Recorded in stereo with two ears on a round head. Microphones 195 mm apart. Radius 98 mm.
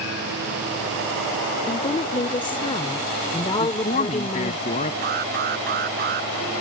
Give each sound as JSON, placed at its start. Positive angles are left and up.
{"t": 1.7, "sound": "a woman speaking", "side_deg": 20}
{"t": 3.6, "sound": "a man speaking", "side_deg": 35}
{"t": 5.0, "sound": "an alarm", "side_deg": -45}